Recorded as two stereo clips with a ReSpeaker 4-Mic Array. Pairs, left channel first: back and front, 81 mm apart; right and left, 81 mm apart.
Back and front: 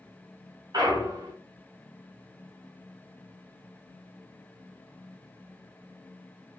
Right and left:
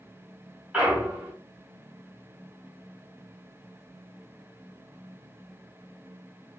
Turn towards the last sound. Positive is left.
turn(degrees=15)